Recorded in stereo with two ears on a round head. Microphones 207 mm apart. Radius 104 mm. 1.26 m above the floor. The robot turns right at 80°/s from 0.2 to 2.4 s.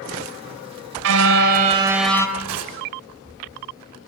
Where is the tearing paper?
85° right, 6 m.